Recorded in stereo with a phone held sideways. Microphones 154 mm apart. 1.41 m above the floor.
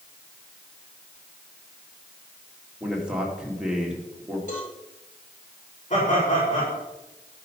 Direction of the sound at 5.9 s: 50° left (ahead or behind).